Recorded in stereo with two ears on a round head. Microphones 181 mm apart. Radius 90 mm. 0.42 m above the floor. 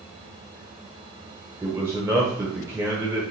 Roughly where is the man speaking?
Centre.